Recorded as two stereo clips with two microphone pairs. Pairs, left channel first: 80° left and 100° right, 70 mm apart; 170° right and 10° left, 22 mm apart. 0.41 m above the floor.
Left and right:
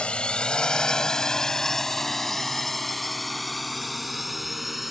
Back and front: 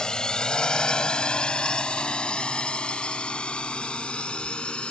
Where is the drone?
150° left; by 4.9 s 175° left.